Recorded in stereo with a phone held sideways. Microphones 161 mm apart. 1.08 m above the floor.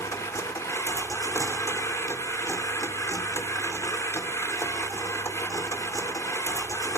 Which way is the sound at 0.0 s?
20° left (ahead or behind).